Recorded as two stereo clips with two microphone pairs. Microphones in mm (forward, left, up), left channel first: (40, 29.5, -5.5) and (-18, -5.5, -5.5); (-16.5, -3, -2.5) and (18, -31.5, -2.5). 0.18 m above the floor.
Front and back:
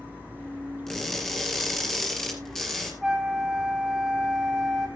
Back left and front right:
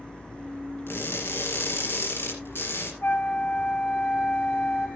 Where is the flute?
125° left, 1.8 m.